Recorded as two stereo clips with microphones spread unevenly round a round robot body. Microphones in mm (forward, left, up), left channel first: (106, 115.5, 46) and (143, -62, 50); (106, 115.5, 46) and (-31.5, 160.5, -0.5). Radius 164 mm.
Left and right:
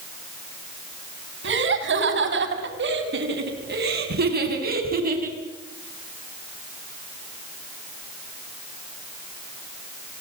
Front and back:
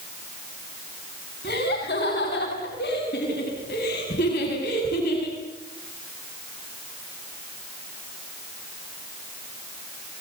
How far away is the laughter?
About 5 m.